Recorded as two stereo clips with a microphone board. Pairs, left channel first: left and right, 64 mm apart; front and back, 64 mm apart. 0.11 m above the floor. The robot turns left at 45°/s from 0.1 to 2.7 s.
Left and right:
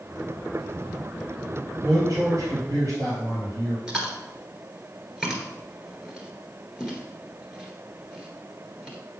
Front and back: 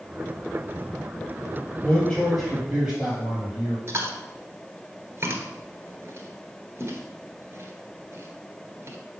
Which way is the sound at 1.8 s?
50° right.